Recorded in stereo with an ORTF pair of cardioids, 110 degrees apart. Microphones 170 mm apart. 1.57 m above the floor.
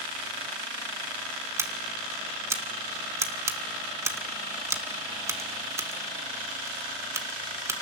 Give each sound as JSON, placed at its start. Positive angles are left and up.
{"t": 1.6, "sound": "scissors", "azimuth_deg": -15, "distance_m": 1.6}